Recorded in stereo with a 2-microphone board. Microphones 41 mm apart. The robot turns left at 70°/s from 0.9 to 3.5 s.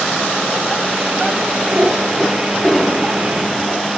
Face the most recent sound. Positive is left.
turn(degrees=100)